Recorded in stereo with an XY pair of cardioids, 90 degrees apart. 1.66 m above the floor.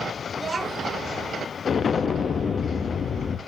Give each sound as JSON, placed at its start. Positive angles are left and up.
{"t": 0.3, "sound": "a child speaking", "azimuth_deg": -40, "distance_m": 2.5}
{"t": 1.6, "sound": "an explosion", "azimuth_deg": 50, "distance_m": 0.8}